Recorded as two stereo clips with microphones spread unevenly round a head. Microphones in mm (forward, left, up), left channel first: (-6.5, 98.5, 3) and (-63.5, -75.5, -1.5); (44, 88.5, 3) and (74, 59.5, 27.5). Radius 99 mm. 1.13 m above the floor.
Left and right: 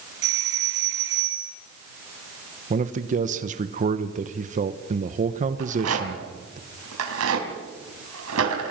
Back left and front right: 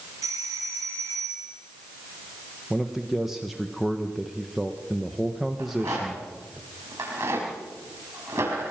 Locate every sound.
0.2 s a doorbell: 75° right, 2.5 m
2.7 s a man speaking: 150° right, 1.0 m
5.6 s a rattle: 95° right, 4.5 m